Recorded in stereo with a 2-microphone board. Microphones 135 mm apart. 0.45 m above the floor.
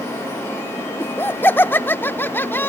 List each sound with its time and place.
1.0 s laughter: 15° left (ahead or behind)